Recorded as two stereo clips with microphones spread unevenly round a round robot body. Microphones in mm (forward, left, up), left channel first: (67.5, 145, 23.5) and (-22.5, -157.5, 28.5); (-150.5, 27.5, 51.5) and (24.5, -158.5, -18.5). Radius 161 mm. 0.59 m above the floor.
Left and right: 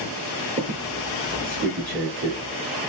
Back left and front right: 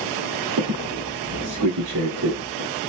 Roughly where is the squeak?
Ahead right.